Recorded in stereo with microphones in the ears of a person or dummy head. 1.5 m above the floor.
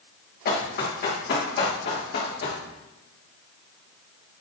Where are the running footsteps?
50° left (ahead or behind), 6.5 m; by 2.6 s 55° left (ahead or behind), 7 m.